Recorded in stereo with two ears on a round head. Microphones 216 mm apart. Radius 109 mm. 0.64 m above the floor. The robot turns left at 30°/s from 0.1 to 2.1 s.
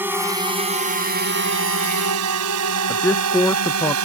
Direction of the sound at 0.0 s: 10° right (ahead or behind).